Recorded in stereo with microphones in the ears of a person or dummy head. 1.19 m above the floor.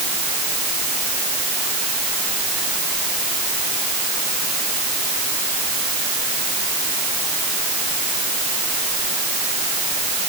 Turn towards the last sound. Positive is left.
No sound to turn to.